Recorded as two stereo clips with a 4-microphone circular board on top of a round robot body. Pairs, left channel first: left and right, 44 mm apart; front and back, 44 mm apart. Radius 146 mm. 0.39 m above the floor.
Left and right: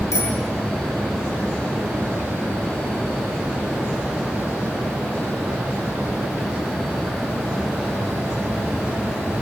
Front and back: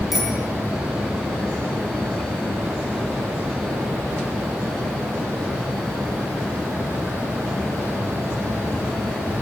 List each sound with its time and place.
0.1 s a bicycle bell: 100° left, 6.5 m